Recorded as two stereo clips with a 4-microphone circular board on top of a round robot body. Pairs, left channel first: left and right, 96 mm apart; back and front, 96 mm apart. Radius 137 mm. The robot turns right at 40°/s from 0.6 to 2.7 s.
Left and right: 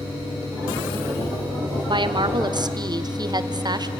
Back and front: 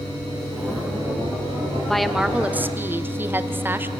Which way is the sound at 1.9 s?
95° right.